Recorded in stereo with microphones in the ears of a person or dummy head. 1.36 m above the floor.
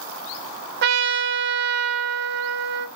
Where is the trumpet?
60° right (ahead or behind), 0.5 m.